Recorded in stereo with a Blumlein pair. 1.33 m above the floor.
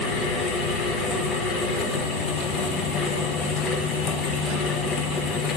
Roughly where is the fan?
Ahead.